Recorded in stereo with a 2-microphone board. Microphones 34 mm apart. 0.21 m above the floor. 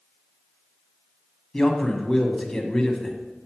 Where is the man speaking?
15° left (ahead or behind), 1.1 m.